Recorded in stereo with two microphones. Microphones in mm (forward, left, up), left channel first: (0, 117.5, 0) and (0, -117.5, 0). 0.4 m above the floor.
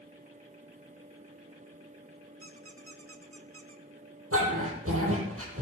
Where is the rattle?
I don't hear a rattle.